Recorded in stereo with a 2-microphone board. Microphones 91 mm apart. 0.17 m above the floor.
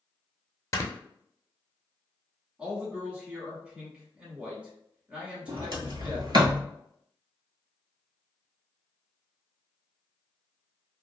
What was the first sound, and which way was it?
Snoring, 35° left (ahead or behind).